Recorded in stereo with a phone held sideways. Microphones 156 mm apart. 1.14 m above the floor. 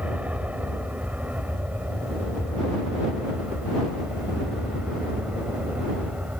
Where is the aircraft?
10° right (ahead or behind).